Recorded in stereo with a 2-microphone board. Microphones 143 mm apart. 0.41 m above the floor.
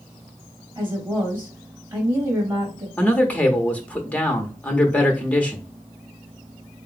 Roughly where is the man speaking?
Centre.